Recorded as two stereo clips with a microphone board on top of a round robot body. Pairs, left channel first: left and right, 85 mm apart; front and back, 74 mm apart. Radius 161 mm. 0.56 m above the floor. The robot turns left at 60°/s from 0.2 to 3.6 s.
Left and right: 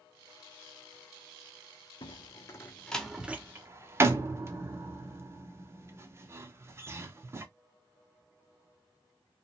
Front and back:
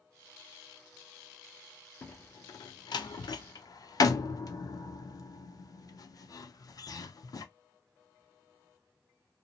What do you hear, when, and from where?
2.0 s a door slam: 65° left, 0.6 m; by 7.5 s 30° right, 0.6 m